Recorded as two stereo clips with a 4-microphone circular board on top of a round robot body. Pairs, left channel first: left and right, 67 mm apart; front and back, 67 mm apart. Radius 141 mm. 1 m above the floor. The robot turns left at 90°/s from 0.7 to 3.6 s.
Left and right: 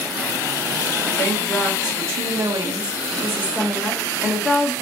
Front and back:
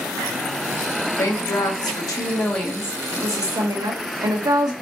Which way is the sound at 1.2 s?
50° left.